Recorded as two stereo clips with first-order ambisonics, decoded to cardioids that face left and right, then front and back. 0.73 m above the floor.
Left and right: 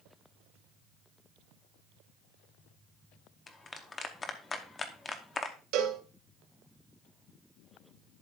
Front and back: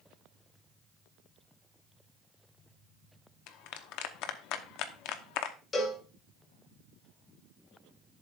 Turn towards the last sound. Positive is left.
turn(degrees=-70)